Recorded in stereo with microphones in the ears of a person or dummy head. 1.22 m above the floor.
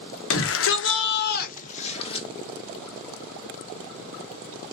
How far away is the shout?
About 1.1 m.